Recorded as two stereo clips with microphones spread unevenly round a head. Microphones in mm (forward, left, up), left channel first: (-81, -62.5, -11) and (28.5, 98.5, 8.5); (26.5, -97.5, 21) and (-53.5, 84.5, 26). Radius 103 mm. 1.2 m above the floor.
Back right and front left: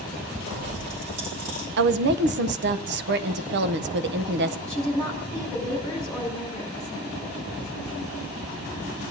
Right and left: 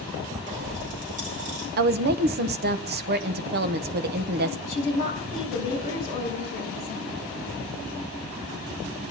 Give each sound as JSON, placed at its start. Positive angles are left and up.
{"t": 0.5, "sound": "a pop", "azimuth_deg": 60, "distance_m": 5.0}
{"t": 1.8, "sound": "a woman speaking", "azimuth_deg": 80, "distance_m": 0.7}
{"t": 4.7, "sound": "a woman speaking", "azimuth_deg": -25, "distance_m": 5.0}